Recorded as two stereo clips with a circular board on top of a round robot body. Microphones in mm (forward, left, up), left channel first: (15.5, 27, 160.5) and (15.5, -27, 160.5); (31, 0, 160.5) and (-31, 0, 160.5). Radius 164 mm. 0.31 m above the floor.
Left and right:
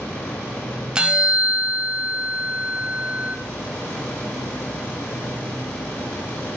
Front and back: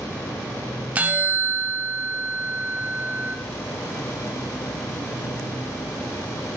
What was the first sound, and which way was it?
A bell, 145° right.